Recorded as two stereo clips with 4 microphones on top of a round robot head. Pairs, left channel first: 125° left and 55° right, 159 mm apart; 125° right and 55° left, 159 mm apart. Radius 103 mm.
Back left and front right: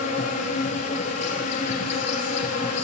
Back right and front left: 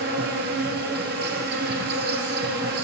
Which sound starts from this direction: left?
An insect, at 0.0 s.